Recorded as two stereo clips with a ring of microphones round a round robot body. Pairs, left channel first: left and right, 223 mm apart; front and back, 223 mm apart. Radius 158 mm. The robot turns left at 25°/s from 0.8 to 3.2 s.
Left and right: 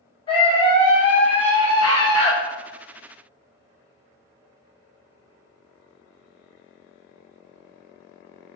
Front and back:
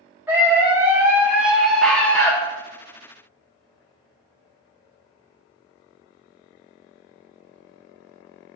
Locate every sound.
0.3 s a scream: 110° left, 0.8 m; by 2.3 s 75° left, 0.8 m